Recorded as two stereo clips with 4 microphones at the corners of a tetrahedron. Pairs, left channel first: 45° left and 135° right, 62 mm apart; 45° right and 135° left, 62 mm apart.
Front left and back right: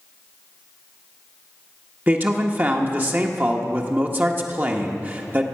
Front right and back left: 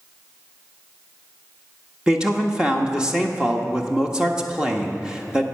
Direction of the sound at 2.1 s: 160° right.